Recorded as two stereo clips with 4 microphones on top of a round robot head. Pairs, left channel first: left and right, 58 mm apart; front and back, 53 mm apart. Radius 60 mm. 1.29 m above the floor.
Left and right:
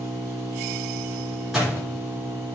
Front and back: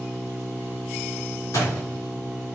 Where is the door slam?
5° right, 3.5 m.